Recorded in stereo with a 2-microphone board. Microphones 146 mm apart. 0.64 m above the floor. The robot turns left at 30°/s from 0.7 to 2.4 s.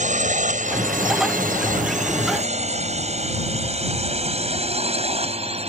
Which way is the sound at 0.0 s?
60° right (ahead or behind).